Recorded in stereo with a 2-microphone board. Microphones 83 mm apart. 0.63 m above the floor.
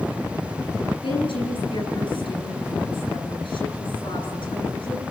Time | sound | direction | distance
1.0 | a woman speaking | 85° left | 9.5 m